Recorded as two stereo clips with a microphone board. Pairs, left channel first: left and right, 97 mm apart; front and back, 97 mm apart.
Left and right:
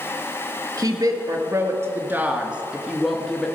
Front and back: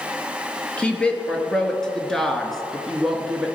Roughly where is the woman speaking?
Right.